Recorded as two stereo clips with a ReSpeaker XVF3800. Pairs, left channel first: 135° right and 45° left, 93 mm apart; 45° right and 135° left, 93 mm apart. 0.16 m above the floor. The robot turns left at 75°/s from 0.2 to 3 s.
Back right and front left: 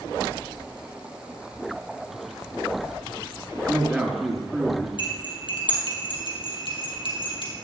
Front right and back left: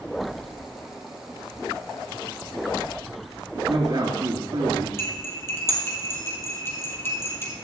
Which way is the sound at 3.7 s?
125° left.